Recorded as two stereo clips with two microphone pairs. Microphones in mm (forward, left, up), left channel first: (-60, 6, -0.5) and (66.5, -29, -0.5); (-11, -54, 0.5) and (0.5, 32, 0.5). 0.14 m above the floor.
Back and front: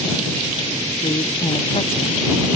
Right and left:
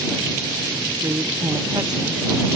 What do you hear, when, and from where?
1.0 s a woman speaking: 125° left; by 2.2 s 120° left